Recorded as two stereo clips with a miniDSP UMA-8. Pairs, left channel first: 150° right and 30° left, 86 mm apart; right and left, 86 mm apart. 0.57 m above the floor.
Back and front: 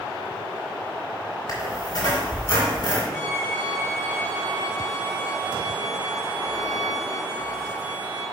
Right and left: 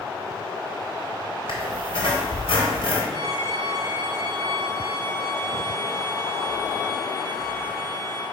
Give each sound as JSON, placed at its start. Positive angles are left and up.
{"t": 1.5, "sound": "a squeak", "azimuth_deg": -110, "distance_m": 3.0}
{"t": 3.1, "sound": "a violin", "azimuth_deg": -125, "distance_m": 3.0}